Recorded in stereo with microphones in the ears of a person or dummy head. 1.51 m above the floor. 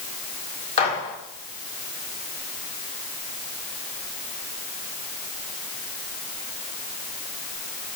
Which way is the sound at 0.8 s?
35° left (ahead or behind).